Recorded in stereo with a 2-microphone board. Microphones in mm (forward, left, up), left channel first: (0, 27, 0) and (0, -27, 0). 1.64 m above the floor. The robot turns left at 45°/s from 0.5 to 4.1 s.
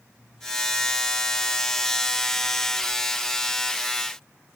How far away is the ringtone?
I don't hear a ringtone.